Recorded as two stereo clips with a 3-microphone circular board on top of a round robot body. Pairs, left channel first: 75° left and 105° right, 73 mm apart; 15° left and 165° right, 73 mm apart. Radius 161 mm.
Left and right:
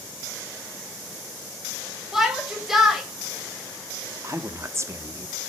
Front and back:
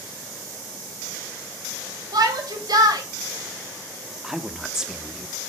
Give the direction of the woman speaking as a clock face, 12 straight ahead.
3 o'clock.